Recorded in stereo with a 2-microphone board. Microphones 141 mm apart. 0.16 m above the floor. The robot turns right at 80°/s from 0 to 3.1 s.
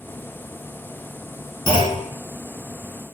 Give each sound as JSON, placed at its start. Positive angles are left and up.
{"t": 1.7, "sound": "a clunk", "azimuth_deg": 55, "distance_m": 2.0}